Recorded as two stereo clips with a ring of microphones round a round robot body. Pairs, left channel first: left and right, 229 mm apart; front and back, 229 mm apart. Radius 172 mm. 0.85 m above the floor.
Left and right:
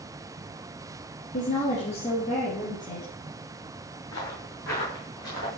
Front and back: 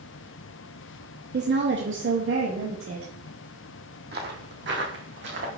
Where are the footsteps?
140° left, 1.6 m; by 5.5 s 145° left, 2.5 m.